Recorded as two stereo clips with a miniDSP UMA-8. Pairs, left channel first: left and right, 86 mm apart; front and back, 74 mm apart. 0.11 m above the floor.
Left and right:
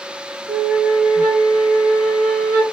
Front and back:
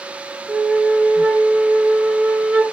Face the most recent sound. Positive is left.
turn(degrees=-115)